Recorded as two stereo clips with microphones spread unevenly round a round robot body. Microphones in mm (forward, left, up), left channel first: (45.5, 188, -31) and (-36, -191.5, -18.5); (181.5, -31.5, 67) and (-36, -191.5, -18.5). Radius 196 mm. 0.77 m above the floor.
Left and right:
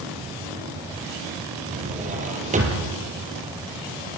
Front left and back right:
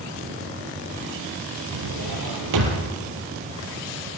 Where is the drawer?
175° right, 5.5 m.